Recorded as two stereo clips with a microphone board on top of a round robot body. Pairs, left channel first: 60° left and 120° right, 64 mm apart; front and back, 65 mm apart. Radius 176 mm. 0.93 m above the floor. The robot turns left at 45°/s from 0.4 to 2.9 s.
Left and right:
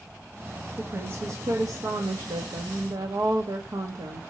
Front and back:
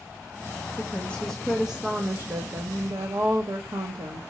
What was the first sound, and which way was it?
A woman speaking, 55° right.